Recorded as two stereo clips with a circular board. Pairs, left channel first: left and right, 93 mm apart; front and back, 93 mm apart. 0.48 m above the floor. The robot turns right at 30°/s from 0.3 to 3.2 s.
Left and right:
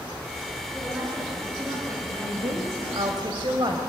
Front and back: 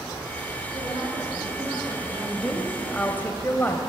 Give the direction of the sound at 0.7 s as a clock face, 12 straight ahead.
6 o'clock.